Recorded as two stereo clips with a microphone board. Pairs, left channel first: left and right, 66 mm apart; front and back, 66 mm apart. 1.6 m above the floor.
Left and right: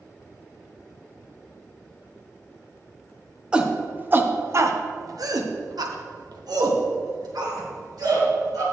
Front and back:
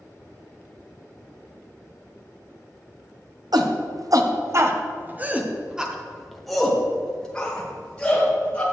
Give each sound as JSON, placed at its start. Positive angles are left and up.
{"t": 3.5, "sound": "a shout", "azimuth_deg": -165, "distance_m": 1.2}